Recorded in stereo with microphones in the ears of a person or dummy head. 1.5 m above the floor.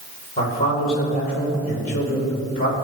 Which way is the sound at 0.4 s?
40° left (ahead or behind).